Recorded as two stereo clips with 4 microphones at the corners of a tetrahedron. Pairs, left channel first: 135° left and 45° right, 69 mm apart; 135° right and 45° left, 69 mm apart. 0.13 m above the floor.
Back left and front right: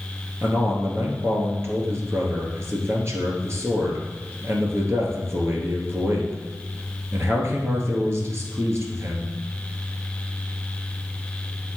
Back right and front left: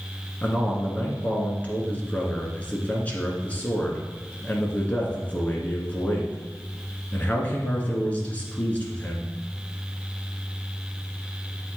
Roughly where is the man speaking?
Right.